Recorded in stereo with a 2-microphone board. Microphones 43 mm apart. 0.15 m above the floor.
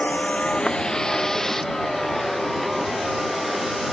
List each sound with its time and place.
0.0 s a vehicle: 35° left (ahead or behind); by 3.9 s centre (ahead or behind)